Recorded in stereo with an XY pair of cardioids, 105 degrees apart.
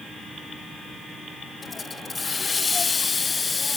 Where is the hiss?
30° left, 0.7 m.